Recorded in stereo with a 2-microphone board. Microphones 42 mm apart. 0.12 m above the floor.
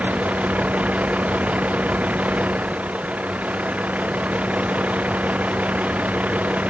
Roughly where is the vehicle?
Right.